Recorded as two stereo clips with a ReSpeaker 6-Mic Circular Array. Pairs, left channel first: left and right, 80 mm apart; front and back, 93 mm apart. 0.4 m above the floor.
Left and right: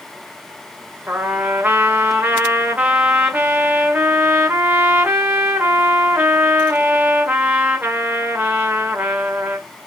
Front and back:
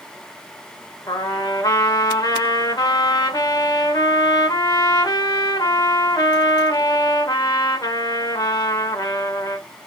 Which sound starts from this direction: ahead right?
A trumpet, at 1.1 s.